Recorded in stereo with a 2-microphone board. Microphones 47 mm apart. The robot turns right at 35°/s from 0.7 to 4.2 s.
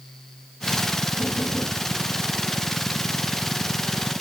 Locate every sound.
1.2 s knocking: 50° right (ahead or behind), 7.5 m; by 1.8 s 30° right (ahead or behind), 7.5 m